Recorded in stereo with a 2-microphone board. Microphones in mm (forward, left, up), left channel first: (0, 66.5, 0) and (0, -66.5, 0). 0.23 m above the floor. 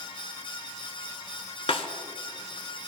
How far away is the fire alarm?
I don't hear a fire alarm.